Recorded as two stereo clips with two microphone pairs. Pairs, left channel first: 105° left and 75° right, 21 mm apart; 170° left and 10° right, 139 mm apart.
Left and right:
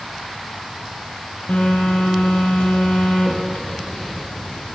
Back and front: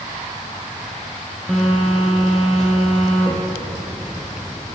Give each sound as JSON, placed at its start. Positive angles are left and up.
{"t": 1.5, "sound": "a phone buzzing", "azimuth_deg": 85, "distance_m": 3.0}